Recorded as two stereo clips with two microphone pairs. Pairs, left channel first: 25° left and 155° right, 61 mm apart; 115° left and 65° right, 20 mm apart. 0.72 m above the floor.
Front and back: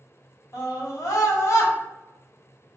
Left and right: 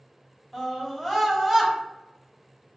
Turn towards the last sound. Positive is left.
turn(degrees=5)